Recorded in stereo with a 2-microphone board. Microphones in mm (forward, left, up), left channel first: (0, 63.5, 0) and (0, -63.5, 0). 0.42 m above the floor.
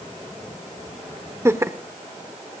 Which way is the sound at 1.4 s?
20° right (ahead or behind).